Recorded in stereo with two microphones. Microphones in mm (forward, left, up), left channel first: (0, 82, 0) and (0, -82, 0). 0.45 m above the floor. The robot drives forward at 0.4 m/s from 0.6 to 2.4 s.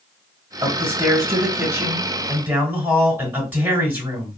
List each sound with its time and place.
0.6 s a man speaking: 20° right (ahead or behind), 1.2 m; by 4.4 s 15° right (ahead or behind), 1.7 m